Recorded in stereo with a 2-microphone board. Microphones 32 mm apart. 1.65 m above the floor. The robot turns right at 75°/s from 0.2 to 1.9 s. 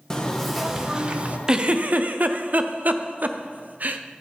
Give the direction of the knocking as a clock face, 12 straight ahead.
7 o'clock.